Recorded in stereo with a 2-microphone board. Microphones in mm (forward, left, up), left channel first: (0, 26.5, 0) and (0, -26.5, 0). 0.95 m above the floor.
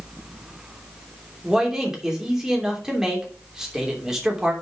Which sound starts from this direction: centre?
A man speaking, at 1.4 s.